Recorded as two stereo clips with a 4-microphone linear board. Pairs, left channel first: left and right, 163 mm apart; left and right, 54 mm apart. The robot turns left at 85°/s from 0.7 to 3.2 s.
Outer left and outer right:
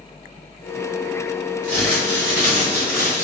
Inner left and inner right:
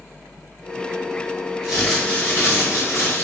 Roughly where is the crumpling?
Behind.